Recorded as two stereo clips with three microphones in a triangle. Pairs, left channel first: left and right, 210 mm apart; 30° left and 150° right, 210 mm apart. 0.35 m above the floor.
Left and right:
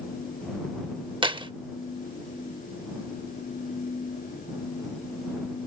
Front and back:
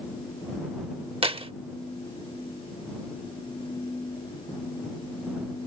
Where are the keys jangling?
125° right.